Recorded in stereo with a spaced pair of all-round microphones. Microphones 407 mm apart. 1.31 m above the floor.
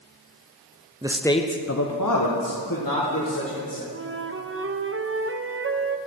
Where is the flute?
30° right (ahead or behind), 0.5 m.